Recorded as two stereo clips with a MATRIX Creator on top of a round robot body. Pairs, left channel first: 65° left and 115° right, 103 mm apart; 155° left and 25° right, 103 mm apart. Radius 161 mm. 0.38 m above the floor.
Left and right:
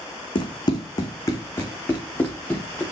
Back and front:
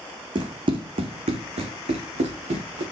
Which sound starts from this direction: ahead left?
Running footsteps, at 0.3 s.